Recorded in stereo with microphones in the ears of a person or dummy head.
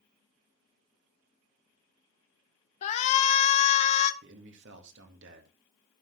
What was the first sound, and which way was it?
A shout, 40° left (ahead or behind).